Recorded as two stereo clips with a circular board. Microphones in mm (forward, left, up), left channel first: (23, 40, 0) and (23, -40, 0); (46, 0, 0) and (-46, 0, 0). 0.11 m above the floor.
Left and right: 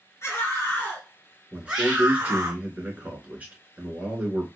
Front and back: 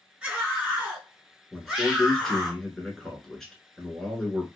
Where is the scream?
110° left, 1.6 m; by 2.5 s 85° right, 1.5 m.